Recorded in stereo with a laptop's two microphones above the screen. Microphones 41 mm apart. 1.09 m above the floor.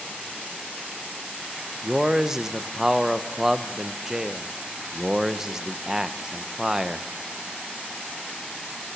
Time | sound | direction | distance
1.8 | a man speaking | 10° right (ahead or behind) | 0.7 m